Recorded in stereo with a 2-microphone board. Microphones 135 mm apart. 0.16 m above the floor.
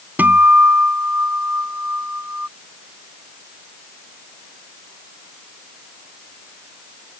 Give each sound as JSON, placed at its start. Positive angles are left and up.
{"t": 0.2, "sound": "a guitar", "side_deg": -15}